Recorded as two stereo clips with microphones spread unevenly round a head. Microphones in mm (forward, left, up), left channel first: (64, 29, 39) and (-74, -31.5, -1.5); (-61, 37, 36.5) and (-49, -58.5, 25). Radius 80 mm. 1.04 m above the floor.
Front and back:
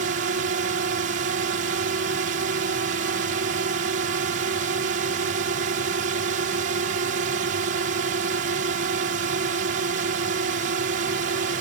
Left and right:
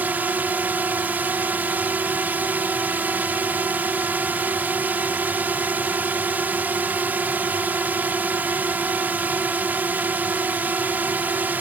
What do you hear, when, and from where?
0.0 s a drone: 150° right